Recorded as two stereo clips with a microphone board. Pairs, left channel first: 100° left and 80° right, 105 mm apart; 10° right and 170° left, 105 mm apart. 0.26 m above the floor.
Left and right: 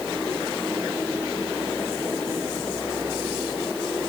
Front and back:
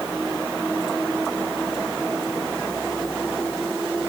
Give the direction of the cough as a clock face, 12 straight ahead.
I don't hear a cough.